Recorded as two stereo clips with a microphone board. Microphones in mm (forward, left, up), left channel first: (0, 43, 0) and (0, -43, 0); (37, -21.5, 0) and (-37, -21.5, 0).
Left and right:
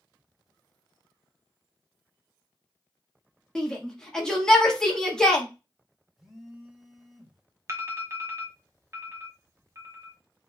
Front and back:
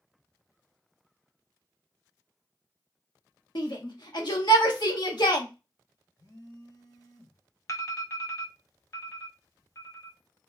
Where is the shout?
10° left, 1.5 m.